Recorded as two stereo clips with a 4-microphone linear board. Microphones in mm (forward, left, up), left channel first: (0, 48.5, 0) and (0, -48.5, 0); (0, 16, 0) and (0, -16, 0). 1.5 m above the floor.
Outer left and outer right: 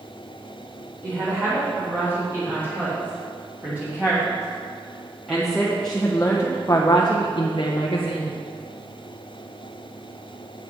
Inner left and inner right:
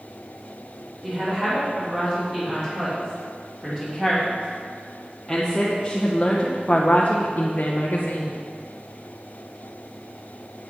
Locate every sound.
1.0 s a woman speaking: 25° right (ahead or behind), 4 m; by 8.4 s 85° left, 1.3 m